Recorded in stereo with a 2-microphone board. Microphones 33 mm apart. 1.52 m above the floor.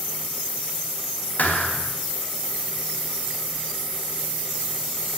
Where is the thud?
60° left (ahead or behind), 3.5 m.